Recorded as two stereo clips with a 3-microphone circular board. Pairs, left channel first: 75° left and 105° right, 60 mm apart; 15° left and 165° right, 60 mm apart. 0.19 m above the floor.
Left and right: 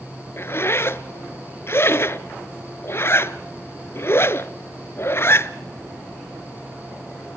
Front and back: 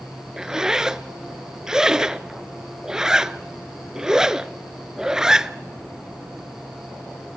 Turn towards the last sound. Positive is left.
turn(degrees=115)